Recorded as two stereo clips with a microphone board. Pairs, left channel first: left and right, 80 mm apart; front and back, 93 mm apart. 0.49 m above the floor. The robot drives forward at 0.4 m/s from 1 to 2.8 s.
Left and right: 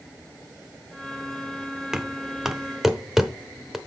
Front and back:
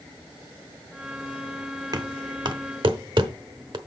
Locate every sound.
1.9 s knocking: 170° right, 0.7 m; by 3.8 s 175° right, 1.0 m